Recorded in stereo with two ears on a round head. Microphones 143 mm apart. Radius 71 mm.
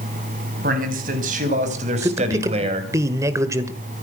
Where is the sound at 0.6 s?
55° right (ahead or behind), 4.5 m; by 2.9 s 35° right (ahead or behind), 3.5 m.